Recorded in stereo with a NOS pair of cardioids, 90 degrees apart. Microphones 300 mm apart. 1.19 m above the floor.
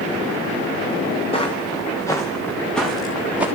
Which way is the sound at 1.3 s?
20° left.